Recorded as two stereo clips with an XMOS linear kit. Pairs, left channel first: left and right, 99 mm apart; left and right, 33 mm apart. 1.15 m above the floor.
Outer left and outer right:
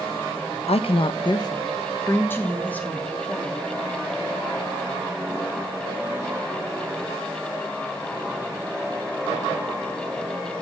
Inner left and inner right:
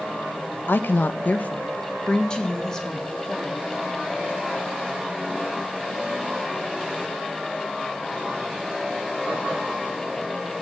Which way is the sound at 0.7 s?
85° left.